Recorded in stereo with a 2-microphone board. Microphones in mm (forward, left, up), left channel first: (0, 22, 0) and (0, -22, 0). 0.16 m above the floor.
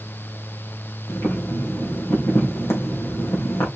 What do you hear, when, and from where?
1.1 s boiling: 70° left (ahead or behind), 4.5 m